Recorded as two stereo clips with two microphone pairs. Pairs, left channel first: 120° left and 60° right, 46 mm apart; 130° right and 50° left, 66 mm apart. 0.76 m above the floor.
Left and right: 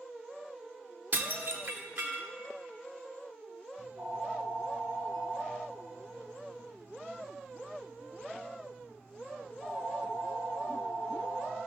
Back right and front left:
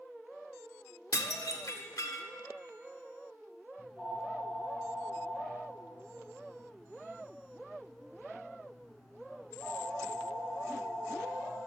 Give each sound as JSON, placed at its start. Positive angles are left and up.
{"t": 1.1, "sound": "dishes clattering", "azimuth_deg": -100, "distance_m": 1.4}
{"t": 3.8, "sound": "a phone ringing", "azimuth_deg": -45, "distance_m": 4.5}